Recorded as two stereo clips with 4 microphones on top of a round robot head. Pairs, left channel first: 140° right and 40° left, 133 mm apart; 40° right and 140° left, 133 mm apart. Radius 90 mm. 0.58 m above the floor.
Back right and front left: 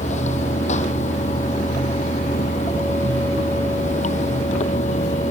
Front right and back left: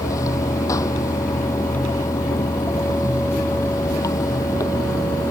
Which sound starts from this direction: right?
Running water, at 0.0 s.